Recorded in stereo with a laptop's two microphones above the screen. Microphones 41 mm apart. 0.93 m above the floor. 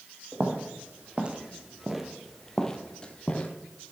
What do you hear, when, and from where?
0.3 s footsteps: 40° right (ahead or behind), 1.3 m; by 3.5 s 30° left (ahead or behind), 1.1 m